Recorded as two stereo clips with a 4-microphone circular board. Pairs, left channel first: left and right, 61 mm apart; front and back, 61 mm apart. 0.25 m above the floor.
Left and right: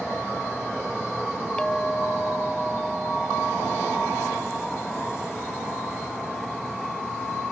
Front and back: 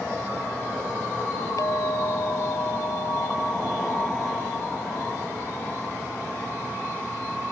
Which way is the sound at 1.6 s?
15° left.